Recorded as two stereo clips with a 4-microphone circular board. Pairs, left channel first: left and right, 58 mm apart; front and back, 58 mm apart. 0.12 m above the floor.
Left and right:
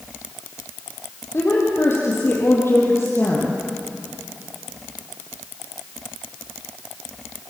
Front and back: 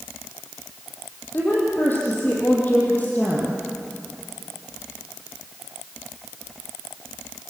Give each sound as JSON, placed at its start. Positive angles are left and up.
{"t": 1.3, "sound": "a woman speaking", "azimuth_deg": 50, "distance_m": 5.5}